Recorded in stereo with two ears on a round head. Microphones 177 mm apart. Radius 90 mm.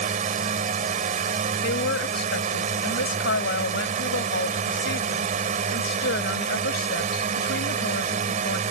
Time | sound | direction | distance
0.0 | a drone | 40° right (ahead or behind) | ?
1.6 | a woman speaking | 60° left (ahead or behind) | ?